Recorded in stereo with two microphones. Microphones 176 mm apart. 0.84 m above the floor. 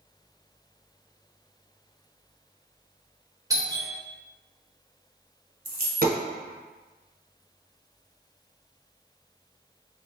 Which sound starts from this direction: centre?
A doorbell, at 3.5 s.